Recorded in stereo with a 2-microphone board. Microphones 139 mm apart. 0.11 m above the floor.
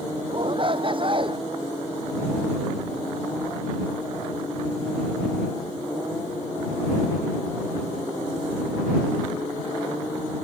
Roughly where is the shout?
Right.